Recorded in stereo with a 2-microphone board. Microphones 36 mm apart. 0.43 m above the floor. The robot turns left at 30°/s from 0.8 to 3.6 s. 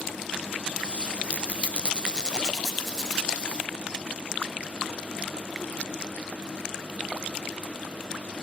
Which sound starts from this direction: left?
A squeak, at 1.3 s.